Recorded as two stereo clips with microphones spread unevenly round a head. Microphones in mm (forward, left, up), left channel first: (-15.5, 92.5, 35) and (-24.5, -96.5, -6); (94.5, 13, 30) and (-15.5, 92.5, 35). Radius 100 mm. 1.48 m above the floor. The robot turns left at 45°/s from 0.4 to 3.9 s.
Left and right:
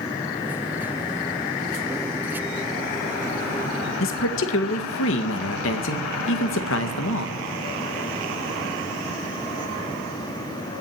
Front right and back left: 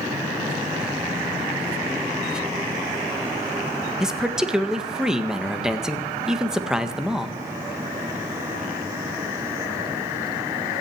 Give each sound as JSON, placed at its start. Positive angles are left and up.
{"t": 4.0, "sound": "a man speaking", "azimuth_deg": 60, "distance_m": 1.7}